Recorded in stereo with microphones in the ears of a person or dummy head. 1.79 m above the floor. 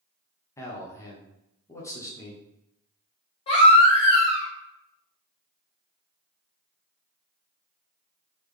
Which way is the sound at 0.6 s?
15° left (ahead or behind).